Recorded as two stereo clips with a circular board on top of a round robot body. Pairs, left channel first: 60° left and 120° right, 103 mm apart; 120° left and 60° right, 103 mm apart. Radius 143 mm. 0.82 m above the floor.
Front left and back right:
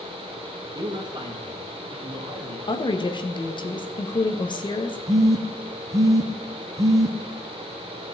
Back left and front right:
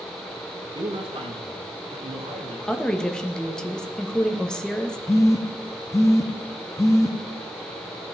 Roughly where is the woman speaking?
Ahead left.